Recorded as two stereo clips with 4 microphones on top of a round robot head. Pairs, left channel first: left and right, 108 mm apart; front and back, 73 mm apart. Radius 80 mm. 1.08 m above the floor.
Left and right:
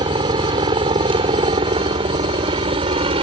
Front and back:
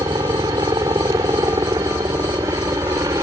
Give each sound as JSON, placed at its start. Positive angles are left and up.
{"t": 0.0, "sound": "a helicopter", "azimuth_deg": -130}